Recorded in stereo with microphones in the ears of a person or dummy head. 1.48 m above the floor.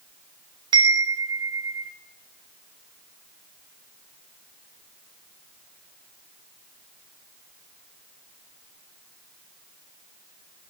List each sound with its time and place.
0.7 s a chime: 30° right (ahead or behind), 0.6 m